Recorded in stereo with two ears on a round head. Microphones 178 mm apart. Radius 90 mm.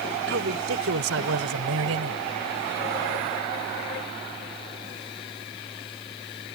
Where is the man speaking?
65° right (ahead or behind); by 2.2 s 85° right.